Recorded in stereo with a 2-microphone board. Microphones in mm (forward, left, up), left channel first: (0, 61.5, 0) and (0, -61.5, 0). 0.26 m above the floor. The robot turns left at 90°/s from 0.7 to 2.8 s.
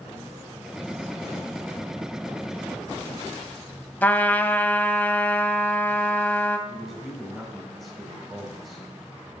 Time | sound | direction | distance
4.0 | a trumpet | 15° left (ahead or behind) | 0.6 m
6.7 | a man speaking | centre (ahead or behind) | 1.7 m